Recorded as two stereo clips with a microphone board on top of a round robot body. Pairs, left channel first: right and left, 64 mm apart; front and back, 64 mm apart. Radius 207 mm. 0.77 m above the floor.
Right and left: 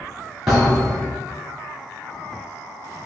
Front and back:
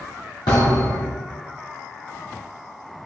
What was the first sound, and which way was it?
A thud, 10° left.